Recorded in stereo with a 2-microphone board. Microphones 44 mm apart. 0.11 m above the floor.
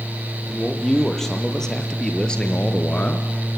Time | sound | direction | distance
0.5 | a man speaking | 5° left (ahead or behind) | 3.5 m